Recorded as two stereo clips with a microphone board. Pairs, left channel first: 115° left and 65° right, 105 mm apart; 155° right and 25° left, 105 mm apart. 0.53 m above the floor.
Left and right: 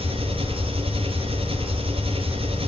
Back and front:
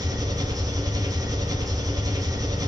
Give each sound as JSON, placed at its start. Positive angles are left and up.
{"t": 0.0, "sound": "an engine running", "azimuth_deg": -35, "distance_m": 5.0}